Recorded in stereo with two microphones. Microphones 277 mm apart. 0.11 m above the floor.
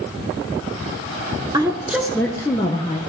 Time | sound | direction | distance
1.5 | a woman speaking | 15° right (ahead or behind) | 1.1 m